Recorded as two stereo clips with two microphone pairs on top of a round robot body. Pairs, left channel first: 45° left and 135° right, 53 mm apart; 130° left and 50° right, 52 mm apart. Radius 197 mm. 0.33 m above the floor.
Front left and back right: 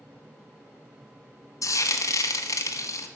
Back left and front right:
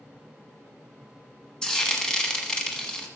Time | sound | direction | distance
1.6 | frying | 55° left | 1.2 m